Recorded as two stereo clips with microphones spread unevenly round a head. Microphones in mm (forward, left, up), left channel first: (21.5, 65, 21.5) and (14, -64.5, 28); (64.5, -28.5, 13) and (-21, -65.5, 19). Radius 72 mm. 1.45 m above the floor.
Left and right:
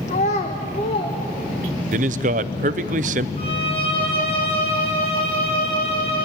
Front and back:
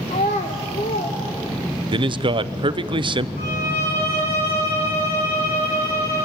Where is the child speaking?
55° left, 1.0 m; by 2.0 s 35° left, 2.5 m.